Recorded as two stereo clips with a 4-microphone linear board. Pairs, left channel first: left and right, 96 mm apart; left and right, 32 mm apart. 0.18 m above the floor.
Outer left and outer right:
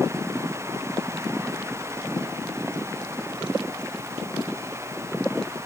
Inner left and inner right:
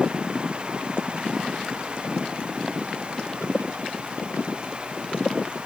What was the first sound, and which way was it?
Only background noise.